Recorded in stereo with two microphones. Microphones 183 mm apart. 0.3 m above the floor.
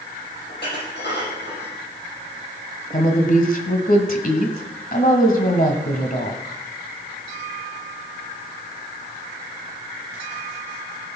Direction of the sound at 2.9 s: 50° left (ahead or behind).